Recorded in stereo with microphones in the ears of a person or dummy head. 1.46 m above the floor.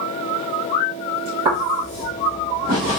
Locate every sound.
1.4 s footsteps: 10° right (ahead or behind), 1.5 m; by 3.0 s 40° right (ahead or behind), 1.8 m